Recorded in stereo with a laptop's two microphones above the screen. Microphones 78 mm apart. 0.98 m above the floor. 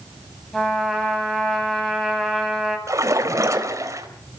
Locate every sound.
0.5 s a trumpet: 5° left (ahead or behind), 8 m
2.9 s a splash: 40° right (ahead or behind), 4 m